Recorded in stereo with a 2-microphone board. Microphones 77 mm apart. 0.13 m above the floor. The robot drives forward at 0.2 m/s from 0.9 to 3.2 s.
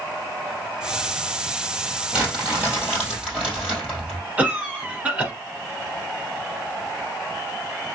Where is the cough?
20° right (ahead or behind), 1.6 m.